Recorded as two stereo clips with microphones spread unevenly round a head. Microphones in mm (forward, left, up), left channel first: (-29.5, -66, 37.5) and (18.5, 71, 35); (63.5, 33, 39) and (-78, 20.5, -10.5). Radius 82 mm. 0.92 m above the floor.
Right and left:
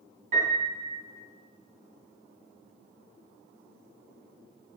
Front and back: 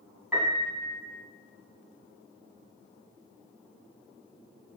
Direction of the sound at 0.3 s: 100° left.